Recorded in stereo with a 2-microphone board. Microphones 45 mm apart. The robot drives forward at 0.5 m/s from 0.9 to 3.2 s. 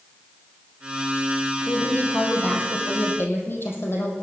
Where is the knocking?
No knocking in this recording.